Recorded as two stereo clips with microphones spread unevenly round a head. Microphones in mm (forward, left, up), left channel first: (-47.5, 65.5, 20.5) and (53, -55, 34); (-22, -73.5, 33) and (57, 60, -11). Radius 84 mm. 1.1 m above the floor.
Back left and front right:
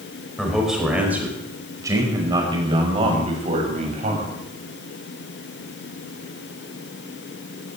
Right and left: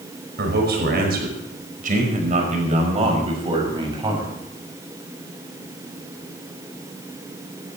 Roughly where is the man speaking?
Ahead left.